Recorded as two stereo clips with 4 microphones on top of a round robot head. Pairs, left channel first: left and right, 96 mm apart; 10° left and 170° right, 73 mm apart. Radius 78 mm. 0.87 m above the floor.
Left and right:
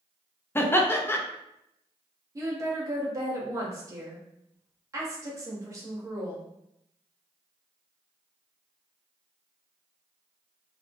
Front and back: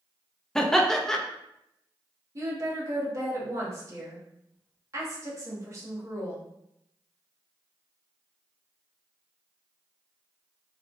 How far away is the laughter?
About 0.6 m.